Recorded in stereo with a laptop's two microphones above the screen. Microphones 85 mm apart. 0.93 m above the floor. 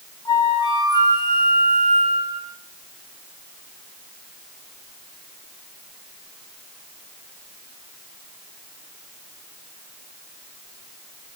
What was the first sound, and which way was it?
A flute, 55° left (ahead or behind).